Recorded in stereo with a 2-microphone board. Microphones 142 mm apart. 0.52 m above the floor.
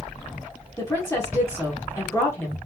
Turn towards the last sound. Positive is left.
turn(degrees=20)  # may be behind; listen again after turning